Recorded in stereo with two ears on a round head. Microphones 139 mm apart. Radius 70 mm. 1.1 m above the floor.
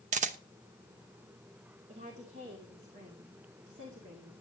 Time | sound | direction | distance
0.1 | a camera shutter | 45° right (ahead or behind) | 0.9 m
1.9 | a woman speaking | 45° right (ahead or behind) | 2.5 m